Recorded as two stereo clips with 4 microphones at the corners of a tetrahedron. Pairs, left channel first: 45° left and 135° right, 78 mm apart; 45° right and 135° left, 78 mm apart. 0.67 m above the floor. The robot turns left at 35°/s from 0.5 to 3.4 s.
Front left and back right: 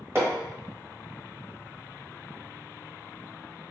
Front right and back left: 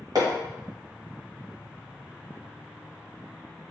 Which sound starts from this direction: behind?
Hammering, at 0.1 s.